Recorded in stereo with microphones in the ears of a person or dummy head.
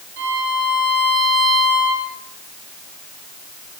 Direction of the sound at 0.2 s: 60° right (ahead or behind).